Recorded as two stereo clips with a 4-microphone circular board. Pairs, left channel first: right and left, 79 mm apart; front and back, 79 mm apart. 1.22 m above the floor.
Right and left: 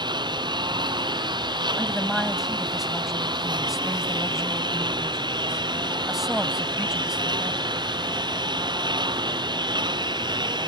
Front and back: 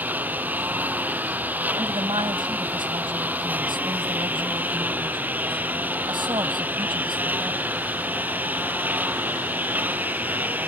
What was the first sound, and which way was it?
A lawn mower, 110° left.